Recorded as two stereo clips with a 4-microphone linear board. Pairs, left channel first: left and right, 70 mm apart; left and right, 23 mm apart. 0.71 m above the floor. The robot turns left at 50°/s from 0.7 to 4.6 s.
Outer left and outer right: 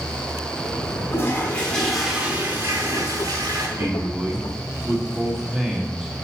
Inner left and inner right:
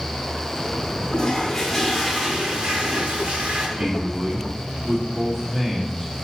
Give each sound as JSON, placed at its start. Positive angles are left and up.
{"t": 1.1, "sound": "a toilet flushing", "azimuth_deg": 40, "distance_m": 1.4}
{"t": 3.8, "sound": "a man speaking", "azimuth_deg": -135, "distance_m": 1.4}